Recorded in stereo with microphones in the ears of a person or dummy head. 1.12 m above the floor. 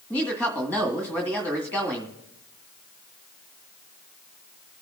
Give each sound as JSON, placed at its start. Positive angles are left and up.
{"t": 0.1, "sound": "a woman speaking", "side_deg": 5, "distance_m": 1.9}